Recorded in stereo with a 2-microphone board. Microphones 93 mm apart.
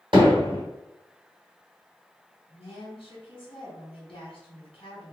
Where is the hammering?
60° right (ahead or behind), 2.0 m.